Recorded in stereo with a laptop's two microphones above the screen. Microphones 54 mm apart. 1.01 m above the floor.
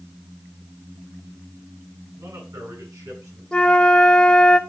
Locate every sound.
2.2 s a man speaking: 85° right, 7 m
3.5 s a flute: 15° left (ahead or behind), 0.9 m